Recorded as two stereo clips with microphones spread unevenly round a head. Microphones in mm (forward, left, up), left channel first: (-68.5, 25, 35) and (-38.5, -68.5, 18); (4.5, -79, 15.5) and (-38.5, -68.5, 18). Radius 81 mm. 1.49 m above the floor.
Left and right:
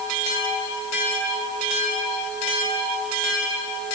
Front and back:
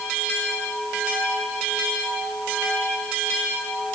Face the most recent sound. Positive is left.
No sound to turn to.